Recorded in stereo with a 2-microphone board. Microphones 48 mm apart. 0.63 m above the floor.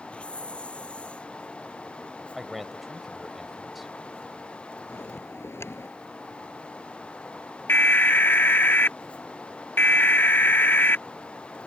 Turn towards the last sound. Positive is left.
turn(degrees=45)  # may be behind; listen again after turning